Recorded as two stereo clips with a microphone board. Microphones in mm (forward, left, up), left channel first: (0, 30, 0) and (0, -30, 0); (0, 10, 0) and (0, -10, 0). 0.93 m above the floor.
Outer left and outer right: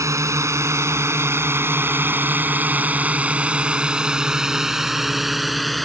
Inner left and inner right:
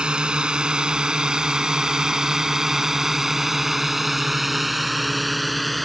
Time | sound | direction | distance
0.0 | a drone | 60° right (ahead or behind) | ?